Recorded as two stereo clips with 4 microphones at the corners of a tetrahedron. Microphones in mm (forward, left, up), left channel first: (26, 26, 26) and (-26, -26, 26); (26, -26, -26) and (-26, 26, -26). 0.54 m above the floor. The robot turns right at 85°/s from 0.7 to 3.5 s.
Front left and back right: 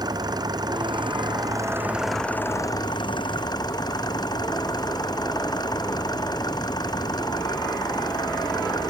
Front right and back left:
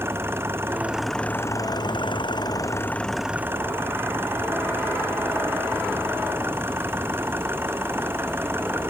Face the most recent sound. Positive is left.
turn(degrees=75)